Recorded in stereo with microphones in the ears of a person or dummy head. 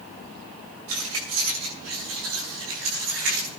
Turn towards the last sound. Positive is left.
turn(degrees=-85)